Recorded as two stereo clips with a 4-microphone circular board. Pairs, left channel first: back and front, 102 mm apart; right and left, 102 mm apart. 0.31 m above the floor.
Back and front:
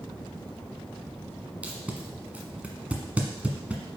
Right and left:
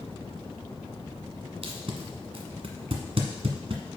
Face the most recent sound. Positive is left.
turn(degrees=75)